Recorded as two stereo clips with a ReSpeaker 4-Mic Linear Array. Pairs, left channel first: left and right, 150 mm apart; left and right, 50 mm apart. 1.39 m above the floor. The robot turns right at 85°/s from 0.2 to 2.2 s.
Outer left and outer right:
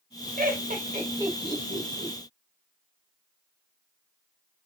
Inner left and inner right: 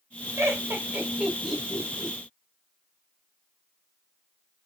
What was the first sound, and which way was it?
Laughter, 80° right.